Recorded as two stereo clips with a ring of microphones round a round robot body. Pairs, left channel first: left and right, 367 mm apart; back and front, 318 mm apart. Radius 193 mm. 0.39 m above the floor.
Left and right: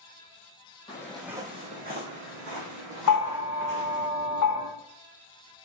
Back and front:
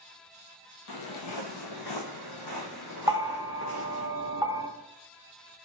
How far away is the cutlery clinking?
I don't hear cutlery clinking.